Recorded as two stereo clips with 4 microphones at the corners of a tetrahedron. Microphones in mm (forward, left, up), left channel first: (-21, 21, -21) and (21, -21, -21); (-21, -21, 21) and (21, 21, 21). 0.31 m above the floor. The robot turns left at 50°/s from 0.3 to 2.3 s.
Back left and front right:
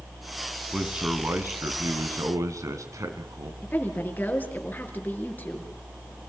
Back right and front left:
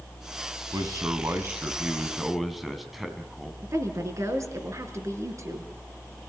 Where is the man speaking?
35° left, 3 m; by 3.5 s 40° right, 3 m.